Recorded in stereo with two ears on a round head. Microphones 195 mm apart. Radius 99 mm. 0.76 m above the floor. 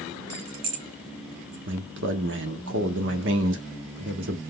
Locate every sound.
0.3 s keys jangling: 75° right (ahead or behind), 0.7 m; by 1.6 s 30° right (ahead or behind), 1.7 m
1.7 s a man speaking: 55° right (ahead or behind), 1.3 m